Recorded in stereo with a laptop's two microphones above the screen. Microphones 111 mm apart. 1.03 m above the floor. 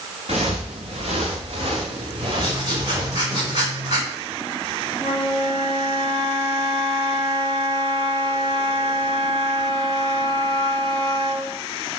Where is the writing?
40° right (ahead or behind), 4.5 m.